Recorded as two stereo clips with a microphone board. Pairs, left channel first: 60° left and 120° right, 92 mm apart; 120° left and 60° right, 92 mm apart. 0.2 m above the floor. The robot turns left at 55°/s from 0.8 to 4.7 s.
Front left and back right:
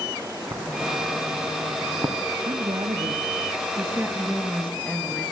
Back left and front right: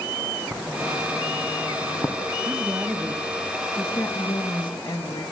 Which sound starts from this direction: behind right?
Writing, at 0.5 s.